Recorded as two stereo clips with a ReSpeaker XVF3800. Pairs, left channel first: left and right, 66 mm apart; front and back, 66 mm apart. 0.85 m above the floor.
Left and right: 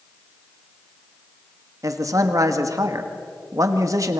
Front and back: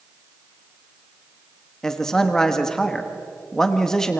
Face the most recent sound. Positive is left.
turn(degrees=-80)